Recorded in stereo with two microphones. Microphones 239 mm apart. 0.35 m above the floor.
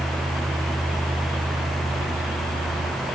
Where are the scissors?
No scissors in this recording.